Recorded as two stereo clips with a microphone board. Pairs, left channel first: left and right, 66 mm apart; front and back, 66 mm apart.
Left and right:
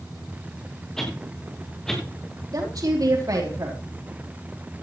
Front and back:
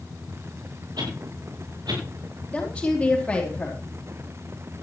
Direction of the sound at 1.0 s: 175° left.